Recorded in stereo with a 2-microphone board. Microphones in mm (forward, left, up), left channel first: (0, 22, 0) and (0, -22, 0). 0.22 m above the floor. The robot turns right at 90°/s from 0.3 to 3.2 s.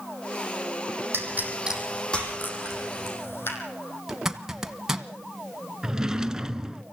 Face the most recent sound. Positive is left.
turn(degrees=-15)  # may be behind; listen again after turning